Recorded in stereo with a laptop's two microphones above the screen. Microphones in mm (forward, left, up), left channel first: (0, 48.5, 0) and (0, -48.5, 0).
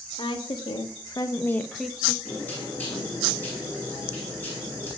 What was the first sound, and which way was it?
A woman speaking, 60° left (ahead or behind).